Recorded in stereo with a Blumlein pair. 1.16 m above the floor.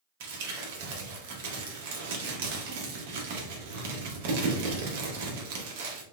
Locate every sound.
0.2 s crumpling: 50° right, 1.0 m